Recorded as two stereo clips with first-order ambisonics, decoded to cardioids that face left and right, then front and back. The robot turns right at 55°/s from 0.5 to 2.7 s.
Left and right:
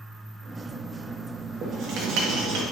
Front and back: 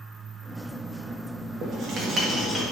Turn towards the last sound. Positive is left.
turn(degrees=-85)